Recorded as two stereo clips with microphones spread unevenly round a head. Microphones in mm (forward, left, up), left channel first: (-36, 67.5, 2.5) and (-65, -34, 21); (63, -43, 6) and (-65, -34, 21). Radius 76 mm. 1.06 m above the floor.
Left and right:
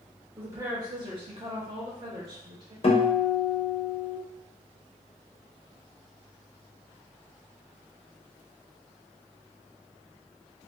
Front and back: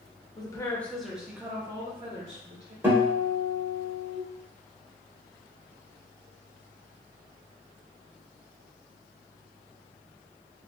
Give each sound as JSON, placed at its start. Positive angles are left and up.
{"t": 0.4, "sound": "a woman speaking", "azimuth_deg": -30, "distance_m": 0.7}
{"t": 2.8, "sound": "a guitar", "azimuth_deg": 95, "distance_m": 0.9}